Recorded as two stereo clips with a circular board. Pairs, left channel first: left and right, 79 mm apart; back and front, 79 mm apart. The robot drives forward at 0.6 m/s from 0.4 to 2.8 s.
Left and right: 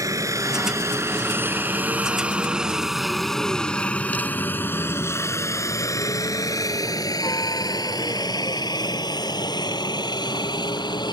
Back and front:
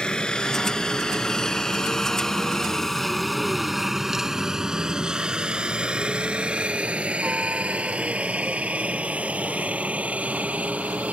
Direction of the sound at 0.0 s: 105° right.